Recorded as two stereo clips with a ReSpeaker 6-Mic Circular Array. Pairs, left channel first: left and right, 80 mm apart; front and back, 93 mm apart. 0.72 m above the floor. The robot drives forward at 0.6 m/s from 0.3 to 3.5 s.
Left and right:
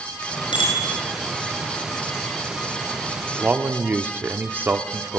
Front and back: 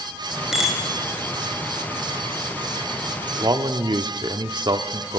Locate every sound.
0.5 s a bicycle bell: 95° left, 7 m
3.4 s a man speaking: 150° right, 1.2 m; by 5.2 s 155° right, 1.3 m